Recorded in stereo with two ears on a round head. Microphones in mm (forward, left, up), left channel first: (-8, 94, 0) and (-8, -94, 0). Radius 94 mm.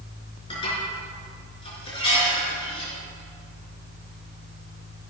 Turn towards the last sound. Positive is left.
turn(degrees=25)  # may be behind; listen again after turning